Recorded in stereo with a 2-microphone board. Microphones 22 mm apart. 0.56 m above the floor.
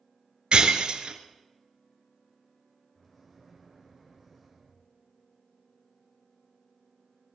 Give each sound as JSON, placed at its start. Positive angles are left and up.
{"t": 0.5, "sound": "breaking glass", "side_deg": -55, "distance_m": 1.1}
{"t": 3.0, "sound": "a microwave", "side_deg": 5, "distance_m": 2.5}